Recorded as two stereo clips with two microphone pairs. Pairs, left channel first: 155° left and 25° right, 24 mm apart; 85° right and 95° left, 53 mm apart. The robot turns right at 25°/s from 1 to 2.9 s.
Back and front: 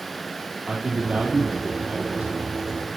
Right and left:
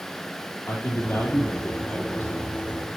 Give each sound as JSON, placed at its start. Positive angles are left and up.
{"t": 0.7, "sound": "a man speaking", "azimuth_deg": -45, "distance_m": 3.0}